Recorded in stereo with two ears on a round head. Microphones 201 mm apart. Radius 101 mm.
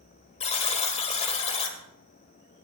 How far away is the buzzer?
About 1.6 m.